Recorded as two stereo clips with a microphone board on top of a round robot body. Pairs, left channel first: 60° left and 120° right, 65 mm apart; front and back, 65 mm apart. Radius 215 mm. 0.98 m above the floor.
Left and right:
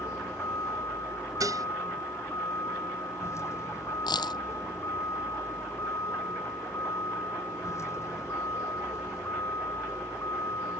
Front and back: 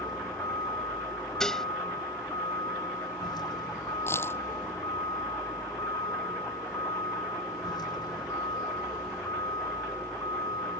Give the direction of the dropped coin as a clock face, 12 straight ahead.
10 o'clock.